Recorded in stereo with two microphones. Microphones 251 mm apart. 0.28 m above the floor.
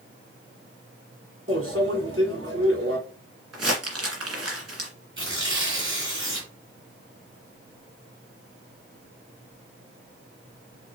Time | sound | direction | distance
1.5 | a microwave | 65° right (ahead or behind) | 2.0 m
3.5 | crumpling | 75° right (ahead or behind) | 1.9 m
5.2 | tearing paper | 50° right (ahead or behind) | 2.5 m